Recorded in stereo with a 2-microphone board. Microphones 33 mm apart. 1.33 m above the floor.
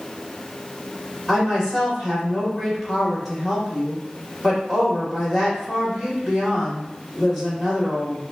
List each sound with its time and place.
1.3 s a woman speaking: 5° right (ahead or behind), 2 m